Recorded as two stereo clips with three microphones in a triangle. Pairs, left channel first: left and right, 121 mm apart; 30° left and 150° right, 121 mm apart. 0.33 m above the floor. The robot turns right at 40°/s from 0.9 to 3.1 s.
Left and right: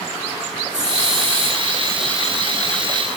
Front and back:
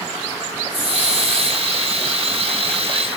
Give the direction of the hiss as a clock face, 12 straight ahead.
2 o'clock.